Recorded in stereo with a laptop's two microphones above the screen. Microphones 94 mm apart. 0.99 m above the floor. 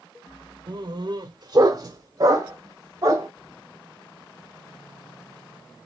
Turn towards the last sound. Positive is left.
turn(degrees=-35)  # may be behind; listen again after turning